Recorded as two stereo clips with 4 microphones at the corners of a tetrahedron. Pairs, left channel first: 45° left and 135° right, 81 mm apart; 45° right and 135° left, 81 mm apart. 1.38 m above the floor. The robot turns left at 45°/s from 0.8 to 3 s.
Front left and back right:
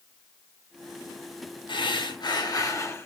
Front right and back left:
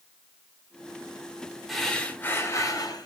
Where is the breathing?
45° left, 1.1 m; by 3.1 s 15° right, 1.1 m.